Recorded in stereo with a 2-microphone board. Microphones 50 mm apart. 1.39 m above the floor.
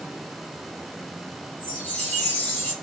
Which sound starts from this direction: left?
A chime, at 1.6 s.